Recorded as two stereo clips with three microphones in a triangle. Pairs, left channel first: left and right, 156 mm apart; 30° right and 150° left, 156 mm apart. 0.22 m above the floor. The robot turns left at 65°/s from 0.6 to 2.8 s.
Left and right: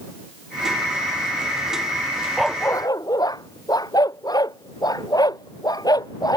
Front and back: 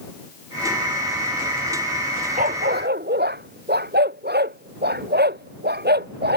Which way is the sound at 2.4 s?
175° right.